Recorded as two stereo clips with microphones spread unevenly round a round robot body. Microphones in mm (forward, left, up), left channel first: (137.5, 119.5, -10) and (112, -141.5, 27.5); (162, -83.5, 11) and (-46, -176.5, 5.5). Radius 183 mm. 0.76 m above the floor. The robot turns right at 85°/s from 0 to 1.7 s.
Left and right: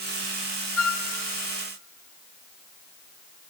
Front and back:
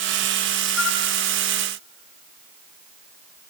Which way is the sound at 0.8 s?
60° left.